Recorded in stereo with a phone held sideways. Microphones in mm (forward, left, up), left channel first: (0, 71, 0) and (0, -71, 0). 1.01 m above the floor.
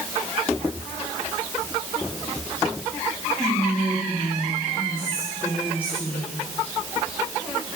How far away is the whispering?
About 2.5 m.